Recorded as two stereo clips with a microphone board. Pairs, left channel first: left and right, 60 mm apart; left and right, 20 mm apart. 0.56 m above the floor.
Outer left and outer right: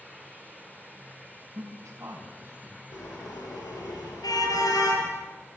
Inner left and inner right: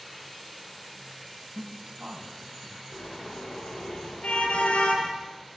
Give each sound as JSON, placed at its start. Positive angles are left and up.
{"t": 1.6, "sound": "a man speaking", "side_deg": -55, "distance_m": 5.0}
{"t": 2.9, "sound": "a car horn", "side_deg": 85, "distance_m": 7.5}